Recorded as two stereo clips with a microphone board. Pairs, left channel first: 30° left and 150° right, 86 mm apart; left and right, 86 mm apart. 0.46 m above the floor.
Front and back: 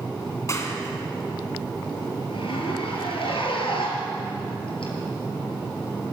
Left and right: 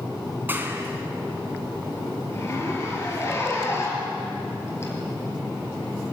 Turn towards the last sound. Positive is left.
turn(degrees=30)